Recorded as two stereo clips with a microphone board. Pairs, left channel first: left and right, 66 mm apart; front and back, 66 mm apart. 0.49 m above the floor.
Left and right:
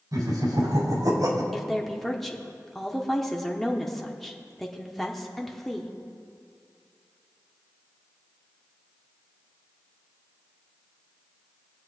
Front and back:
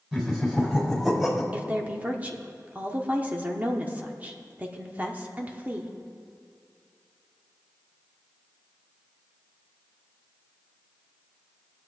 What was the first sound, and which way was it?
Laughter, 100° right.